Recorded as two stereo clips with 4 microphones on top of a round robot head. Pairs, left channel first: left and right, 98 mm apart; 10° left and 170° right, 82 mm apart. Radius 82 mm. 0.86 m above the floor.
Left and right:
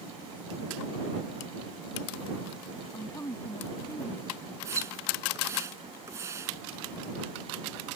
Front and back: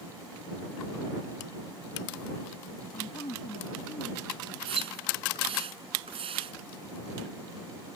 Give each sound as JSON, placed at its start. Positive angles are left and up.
{"t": 2.9, "sound": "a woman speaking", "azimuth_deg": 35}
{"t": 4.7, "sound": "a splash", "azimuth_deg": -160}